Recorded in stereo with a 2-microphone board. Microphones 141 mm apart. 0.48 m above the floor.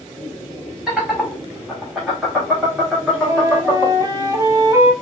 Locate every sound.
0.9 s laughter: 5° right (ahead or behind), 1.8 m; by 4.1 s 5° left (ahead or behind), 1.4 m
3.1 s a flute: 25° right (ahead or behind), 0.9 m